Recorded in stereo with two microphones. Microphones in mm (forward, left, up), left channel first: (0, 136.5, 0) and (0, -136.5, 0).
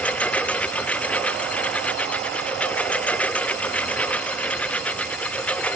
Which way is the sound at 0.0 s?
5° left (ahead or behind).